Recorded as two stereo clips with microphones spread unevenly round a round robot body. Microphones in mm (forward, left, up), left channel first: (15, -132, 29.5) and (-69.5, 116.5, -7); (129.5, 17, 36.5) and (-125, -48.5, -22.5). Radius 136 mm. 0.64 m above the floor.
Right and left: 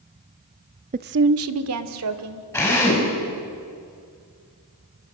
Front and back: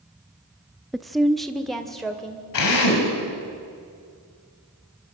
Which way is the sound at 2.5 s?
10° left.